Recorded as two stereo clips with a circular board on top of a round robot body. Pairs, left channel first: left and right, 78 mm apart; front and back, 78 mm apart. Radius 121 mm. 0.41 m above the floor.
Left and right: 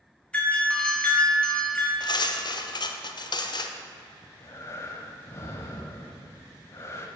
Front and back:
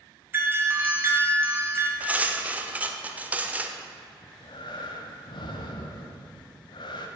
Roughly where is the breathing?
Ahead left.